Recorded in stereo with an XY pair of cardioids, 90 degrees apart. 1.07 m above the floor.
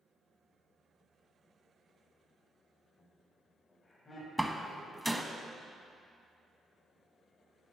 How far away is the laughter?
About 3.5 m.